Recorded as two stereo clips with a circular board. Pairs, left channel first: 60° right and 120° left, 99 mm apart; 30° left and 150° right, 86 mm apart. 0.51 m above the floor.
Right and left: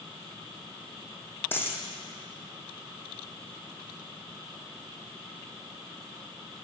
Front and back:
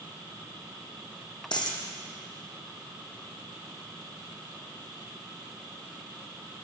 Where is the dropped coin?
5° left, 1.3 m.